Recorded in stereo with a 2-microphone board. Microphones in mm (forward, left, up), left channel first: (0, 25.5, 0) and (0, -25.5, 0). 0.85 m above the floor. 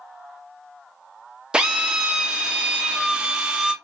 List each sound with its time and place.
1.5 s a drill: 20° right (ahead or behind), 0.5 m